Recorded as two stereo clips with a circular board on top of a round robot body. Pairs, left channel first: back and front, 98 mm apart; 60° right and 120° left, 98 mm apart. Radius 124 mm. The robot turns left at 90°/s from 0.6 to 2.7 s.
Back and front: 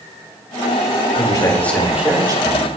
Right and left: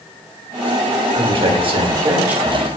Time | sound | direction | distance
1.1 | a man speaking | 155° left | 1.7 m